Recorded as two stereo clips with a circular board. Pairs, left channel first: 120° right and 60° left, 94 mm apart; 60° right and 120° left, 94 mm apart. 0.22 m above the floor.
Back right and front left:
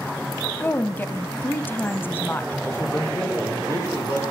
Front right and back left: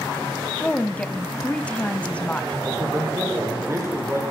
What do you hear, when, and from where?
0.6 s a woman speaking: 115° right, 1.3 m
2.6 s a man speaking: straight behind, 8 m